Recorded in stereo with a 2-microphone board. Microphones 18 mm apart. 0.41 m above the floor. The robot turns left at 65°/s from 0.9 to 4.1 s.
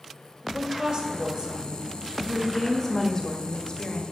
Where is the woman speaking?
90° right, 1.7 m; by 4.0 s 65° left, 1.7 m.